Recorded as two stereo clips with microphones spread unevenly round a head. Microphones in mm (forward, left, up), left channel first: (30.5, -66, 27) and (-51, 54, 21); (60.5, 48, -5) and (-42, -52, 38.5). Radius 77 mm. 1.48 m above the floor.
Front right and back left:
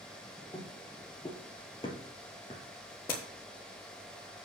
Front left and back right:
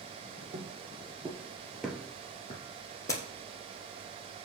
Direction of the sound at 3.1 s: 25° right.